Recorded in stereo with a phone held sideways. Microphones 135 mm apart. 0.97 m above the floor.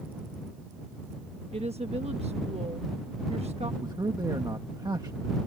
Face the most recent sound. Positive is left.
turn(degrees=-30)  # may be behind; listen again after turning